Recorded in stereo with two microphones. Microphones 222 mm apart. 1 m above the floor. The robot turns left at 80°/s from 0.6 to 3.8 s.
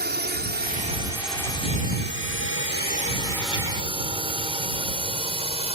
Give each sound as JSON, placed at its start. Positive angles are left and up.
{"t": 0.0, "sound": "a drone", "side_deg": -50}